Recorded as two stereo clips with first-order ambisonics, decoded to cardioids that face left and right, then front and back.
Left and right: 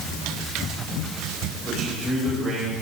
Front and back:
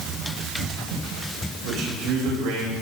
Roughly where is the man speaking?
Behind.